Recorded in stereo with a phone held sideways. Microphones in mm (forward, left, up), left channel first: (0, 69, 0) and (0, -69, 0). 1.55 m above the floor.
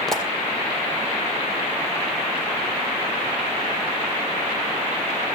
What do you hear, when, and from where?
0.1 s a pop: 5° left (ahead or behind), 2.5 m